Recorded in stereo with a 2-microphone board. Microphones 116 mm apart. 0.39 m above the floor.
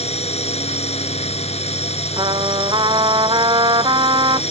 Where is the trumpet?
40° right (ahead or behind).